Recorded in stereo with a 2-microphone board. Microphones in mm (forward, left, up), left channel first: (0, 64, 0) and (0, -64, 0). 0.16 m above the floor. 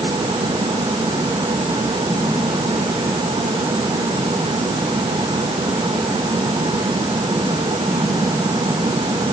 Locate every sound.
Only background noise.